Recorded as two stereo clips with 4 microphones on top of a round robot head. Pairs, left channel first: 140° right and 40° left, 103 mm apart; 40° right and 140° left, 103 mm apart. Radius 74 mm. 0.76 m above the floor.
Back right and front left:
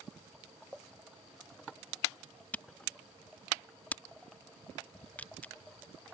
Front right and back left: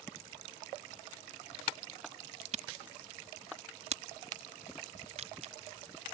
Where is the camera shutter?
140° left.